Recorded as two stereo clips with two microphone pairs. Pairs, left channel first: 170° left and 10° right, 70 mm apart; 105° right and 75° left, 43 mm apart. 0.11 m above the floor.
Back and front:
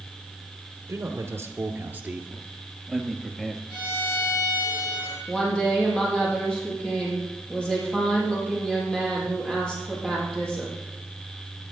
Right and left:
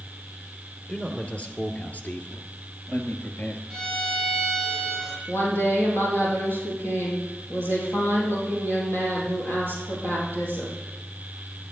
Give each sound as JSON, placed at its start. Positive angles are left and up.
{"t": 0.9, "sound": "a man speaking", "azimuth_deg": -40, "distance_m": 1.7}
{"t": 3.7, "sound": "a violin", "azimuth_deg": 175, "distance_m": 4.0}
{"t": 5.3, "sound": "a woman speaking", "azimuth_deg": -110, "distance_m": 4.0}